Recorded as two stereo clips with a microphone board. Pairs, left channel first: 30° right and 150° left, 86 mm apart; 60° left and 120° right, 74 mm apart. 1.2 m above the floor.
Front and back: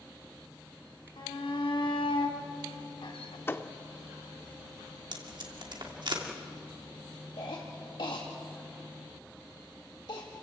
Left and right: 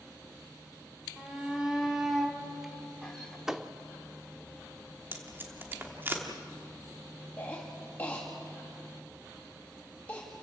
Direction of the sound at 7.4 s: 5° right.